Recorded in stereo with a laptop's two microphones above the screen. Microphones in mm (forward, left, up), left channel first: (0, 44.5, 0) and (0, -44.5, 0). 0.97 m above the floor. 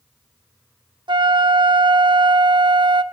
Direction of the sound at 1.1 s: 60° right (ahead or behind).